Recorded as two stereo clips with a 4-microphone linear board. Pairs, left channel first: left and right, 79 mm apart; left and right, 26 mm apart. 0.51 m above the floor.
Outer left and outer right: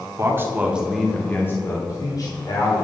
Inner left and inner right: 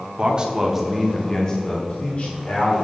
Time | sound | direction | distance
0.2 | a man speaking | 35° right (ahead or behind) | 1.4 m